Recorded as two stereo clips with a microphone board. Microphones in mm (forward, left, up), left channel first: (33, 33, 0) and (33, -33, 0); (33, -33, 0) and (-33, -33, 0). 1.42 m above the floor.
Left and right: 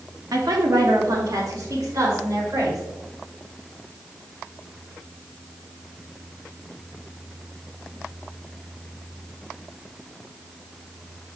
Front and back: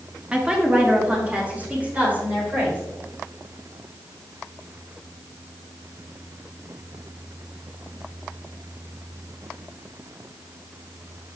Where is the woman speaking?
105° right, 1.2 m; by 2.8 s 115° right, 3.5 m.